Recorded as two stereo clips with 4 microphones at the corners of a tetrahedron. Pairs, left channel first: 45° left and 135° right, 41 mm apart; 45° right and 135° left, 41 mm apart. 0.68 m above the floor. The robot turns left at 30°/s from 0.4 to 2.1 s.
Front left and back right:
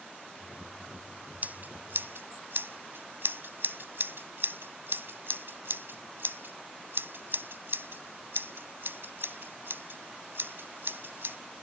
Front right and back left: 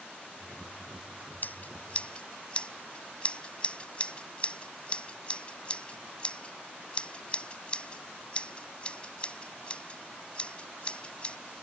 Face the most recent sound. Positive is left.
turn(degrees=-110)